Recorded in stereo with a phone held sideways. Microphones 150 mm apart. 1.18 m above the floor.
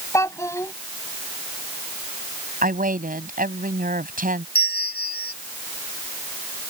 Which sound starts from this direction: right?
A woman speaking, at 2.6 s.